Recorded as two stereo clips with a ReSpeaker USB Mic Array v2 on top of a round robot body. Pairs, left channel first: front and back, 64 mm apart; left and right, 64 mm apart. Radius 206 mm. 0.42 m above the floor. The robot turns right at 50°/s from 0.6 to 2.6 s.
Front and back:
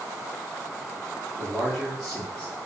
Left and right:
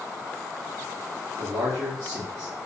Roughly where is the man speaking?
Behind right.